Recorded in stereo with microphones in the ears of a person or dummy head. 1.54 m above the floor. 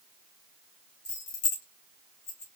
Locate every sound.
1.1 s keys jangling: 65° left (ahead or behind), 1.1 m; by 2.5 s 35° left (ahead or behind), 1.5 m